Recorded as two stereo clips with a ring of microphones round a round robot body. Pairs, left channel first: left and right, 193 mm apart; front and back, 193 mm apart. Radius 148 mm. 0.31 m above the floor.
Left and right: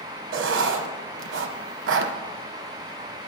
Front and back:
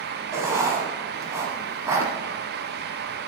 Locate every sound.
0.3 s writing: 100° right, 0.8 m